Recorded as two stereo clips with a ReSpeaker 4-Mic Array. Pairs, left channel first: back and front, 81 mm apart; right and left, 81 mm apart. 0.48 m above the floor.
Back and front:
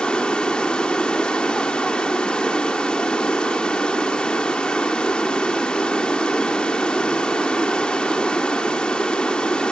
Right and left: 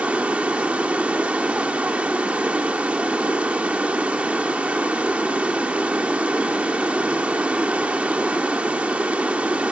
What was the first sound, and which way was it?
Running water, 130° left.